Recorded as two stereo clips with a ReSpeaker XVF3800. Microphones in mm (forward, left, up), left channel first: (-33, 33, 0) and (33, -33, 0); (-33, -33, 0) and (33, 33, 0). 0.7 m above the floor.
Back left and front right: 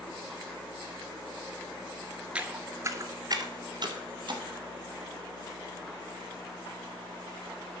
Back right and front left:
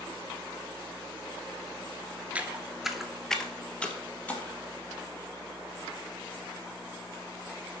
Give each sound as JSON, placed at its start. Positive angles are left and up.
{"t": 2.4, "sound": "footsteps", "azimuth_deg": 5, "distance_m": 0.7}